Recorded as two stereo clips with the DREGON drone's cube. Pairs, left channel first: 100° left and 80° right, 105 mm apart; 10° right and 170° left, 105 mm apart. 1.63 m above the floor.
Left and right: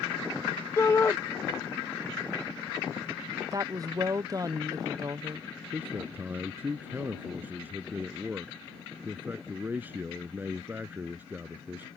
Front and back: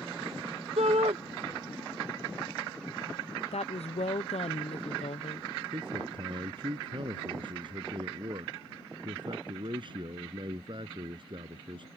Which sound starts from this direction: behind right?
A man speaking, at 5.7 s.